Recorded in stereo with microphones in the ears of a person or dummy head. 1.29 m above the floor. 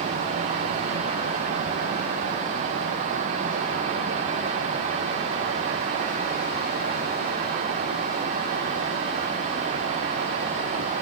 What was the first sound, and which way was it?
Only background noise.